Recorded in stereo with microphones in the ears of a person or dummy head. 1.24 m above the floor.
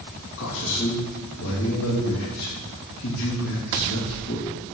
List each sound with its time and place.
0.4 s a man speaking: 70° left (ahead or behind), 2 m